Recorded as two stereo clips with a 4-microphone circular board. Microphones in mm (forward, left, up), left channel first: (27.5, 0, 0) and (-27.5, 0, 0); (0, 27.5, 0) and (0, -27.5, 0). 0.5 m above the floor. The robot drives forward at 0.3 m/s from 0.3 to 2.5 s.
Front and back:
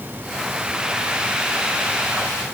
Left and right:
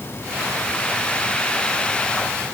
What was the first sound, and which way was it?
Only background noise.